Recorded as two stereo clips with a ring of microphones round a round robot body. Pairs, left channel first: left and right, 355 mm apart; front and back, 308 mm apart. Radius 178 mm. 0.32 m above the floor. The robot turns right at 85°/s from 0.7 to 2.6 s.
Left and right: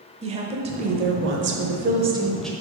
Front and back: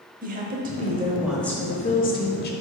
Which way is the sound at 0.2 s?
145° right.